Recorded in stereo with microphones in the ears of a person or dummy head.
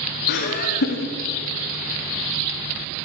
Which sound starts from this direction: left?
Laughter, at 0.3 s.